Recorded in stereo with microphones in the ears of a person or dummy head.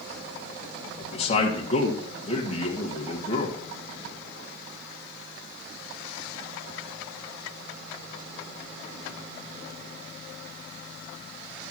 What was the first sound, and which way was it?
A man speaking, 30° left (ahead or behind).